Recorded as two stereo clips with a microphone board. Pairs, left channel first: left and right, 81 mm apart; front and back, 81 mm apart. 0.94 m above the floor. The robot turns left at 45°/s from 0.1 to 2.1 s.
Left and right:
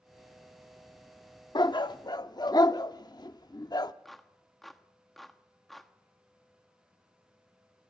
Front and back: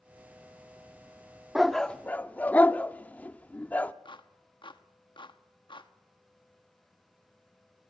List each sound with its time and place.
1.6 s a dog barking: 95° left, 0.7 m; by 3.9 s 70° left, 0.7 m
4.0 s a clap: straight ahead, 1.2 m